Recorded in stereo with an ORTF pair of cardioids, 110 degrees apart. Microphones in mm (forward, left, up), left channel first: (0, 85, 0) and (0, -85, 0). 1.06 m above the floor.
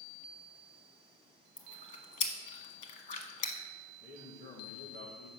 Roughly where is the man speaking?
Ahead left.